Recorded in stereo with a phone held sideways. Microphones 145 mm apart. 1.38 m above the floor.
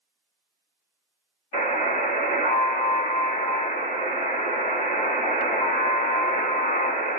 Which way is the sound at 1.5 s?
45° left (ahead or behind).